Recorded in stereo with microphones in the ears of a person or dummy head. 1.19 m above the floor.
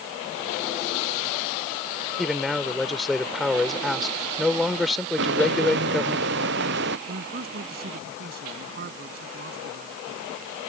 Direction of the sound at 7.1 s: 55° right (ahead or behind).